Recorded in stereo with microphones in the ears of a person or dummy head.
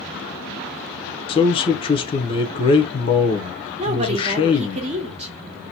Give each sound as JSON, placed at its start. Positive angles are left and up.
{"t": 1.3, "sound": "a man speaking", "side_deg": 25, "distance_m": 0.8}
{"t": 3.8, "sound": "a woman speaking", "side_deg": -30, "distance_m": 1.0}